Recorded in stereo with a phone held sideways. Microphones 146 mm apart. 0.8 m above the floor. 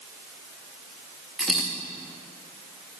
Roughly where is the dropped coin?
Centre.